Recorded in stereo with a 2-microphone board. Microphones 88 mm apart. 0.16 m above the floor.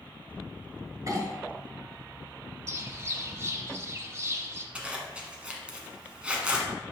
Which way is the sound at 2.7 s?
30° right (ahead or behind).